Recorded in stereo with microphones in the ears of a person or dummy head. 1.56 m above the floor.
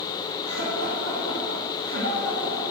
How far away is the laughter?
About 2.5 m.